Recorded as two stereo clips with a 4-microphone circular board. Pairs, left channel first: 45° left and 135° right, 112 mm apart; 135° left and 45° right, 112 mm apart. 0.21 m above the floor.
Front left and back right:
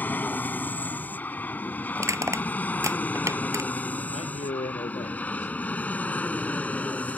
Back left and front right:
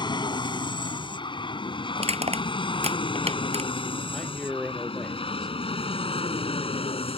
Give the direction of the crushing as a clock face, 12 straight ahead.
2 o'clock.